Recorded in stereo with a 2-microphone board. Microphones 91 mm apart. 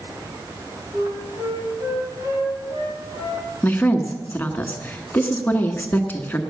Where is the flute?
30° right (ahead or behind), 7.5 m.